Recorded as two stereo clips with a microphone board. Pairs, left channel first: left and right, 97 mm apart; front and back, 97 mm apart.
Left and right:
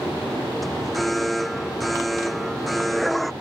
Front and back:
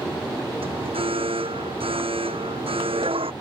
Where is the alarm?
Straight behind.